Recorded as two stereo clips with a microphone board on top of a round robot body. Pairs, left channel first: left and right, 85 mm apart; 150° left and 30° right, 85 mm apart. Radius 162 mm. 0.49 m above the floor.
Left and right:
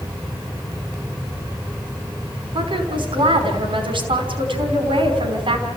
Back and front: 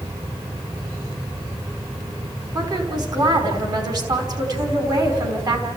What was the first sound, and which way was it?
A woman speaking, 70° right.